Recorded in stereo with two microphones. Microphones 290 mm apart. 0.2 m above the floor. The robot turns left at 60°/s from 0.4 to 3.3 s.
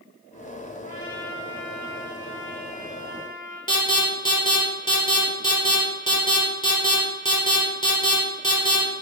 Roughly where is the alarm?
Centre.